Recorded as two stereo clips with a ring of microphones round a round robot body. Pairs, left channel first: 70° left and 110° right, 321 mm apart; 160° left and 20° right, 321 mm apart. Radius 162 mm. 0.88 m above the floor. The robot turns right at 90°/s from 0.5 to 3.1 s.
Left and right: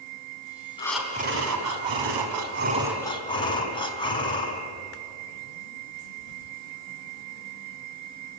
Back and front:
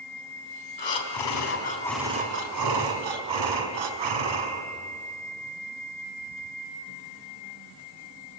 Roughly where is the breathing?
Behind left.